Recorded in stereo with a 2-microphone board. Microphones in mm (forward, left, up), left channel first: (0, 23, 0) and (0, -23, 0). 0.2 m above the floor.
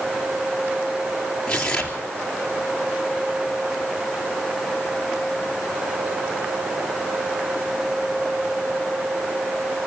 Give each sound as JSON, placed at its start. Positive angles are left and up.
{"t": 1.5, "sound": "tearing paper", "side_deg": 20, "distance_m": 3.0}